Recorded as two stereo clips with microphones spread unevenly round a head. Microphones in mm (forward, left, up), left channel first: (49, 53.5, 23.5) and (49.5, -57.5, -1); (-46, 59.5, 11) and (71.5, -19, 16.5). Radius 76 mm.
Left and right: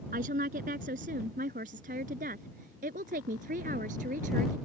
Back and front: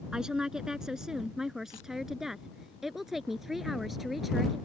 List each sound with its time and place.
0.1 s a woman speaking: 120° right; by 4.6 s 125° right